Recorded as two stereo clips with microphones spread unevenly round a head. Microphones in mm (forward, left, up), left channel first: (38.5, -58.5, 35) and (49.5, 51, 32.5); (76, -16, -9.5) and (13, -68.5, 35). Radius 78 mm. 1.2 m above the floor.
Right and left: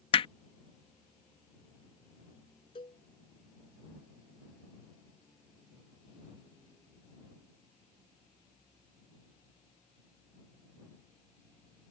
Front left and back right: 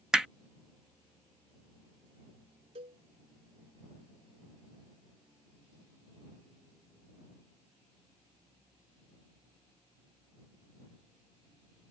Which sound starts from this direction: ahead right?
Hammering, at 0.1 s.